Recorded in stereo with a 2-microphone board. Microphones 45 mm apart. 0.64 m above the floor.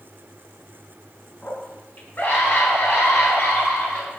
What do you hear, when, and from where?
1.4 s a scream: 40° left (ahead or behind), 5.5 m; by 4.2 s 55° left (ahead or behind), 8.5 m